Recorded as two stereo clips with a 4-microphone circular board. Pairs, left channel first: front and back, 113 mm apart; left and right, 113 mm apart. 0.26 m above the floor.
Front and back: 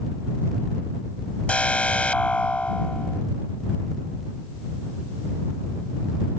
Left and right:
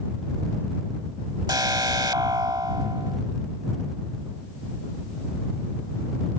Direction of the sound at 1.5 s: 70° right.